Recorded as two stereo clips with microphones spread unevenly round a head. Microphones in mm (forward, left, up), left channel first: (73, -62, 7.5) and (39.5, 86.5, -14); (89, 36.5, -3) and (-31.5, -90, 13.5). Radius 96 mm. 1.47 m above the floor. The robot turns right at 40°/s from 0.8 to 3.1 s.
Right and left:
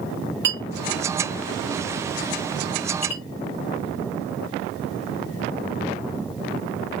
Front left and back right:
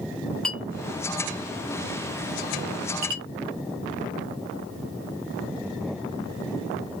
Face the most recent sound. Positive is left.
turn(degrees=-135)